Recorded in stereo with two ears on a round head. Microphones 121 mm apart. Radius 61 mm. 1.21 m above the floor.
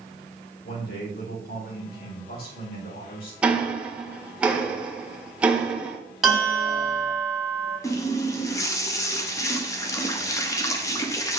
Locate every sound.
0.6 s a man speaking: 80° left, 4 m
3.4 s ticking: 10° right (ahead or behind), 1.5 m
6.2 s a bell: centre (ahead or behind), 4 m
7.8 s a running tap: 20° left (ahead or behind), 0.9 m